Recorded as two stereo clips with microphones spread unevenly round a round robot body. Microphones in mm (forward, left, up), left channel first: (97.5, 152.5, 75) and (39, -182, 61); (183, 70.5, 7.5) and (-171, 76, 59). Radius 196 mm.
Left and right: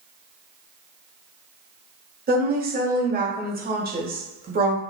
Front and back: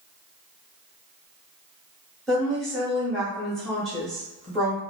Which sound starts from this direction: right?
A woman speaking, at 2.3 s.